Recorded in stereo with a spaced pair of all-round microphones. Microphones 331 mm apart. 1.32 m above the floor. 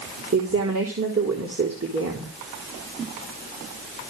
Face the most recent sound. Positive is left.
turn(degrees=-45)  # may be behind; listen again after turning